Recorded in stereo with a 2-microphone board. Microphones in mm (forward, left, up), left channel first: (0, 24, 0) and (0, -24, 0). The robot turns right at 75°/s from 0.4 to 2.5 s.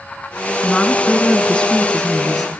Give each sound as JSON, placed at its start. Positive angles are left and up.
{"t": 0.6, "sound": "a woman speaking", "side_deg": 20, "distance_m": 1.3}